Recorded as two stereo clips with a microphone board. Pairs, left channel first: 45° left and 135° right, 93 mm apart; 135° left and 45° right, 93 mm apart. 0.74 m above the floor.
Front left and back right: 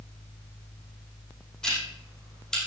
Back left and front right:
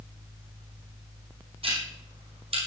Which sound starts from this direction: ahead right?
Ticking, at 1.6 s.